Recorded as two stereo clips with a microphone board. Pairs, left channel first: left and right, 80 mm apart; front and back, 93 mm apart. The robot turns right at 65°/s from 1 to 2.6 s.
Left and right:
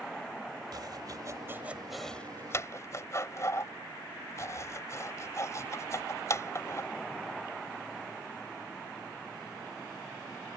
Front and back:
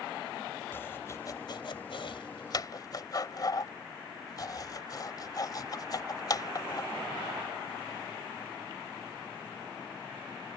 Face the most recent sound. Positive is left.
turn(degrees=40)